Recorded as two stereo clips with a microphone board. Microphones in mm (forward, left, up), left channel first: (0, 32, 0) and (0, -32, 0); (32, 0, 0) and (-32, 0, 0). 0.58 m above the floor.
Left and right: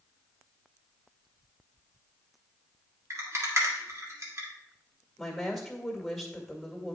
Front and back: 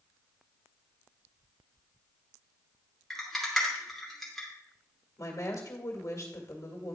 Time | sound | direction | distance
3.1 | a rattle | 85° right | 1.8 m
5.2 | a woman speaking | straight ahead | 1.9 m